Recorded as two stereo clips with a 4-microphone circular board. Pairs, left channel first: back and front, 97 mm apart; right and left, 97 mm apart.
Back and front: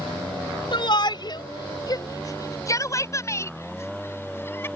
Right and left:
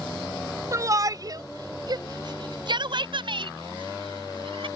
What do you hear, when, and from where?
0.7 s a shout: 145° left; by 4.7 s 115° left